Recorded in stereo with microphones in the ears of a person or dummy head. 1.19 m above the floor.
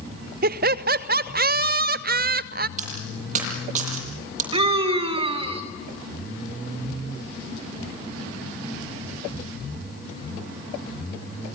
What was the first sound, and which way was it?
Laughter, 45° right (ahead or behind).